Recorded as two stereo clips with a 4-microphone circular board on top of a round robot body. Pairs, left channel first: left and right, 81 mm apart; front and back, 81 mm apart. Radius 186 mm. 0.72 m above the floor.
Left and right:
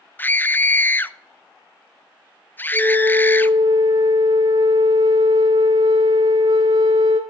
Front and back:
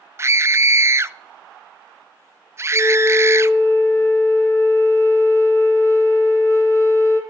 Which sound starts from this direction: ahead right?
A flute, at 2.7 s.